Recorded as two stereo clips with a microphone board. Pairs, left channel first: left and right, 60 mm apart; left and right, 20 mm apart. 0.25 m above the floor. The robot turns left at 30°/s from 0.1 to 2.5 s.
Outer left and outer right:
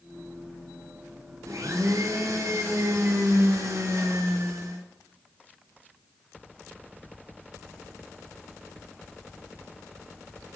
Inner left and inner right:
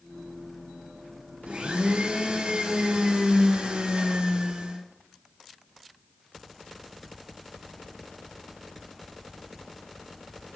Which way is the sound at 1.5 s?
65° right.